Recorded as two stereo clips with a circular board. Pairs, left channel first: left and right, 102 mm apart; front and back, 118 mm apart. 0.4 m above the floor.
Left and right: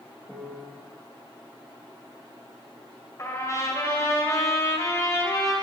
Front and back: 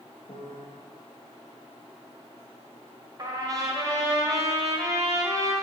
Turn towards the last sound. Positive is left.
turn(degrees=135)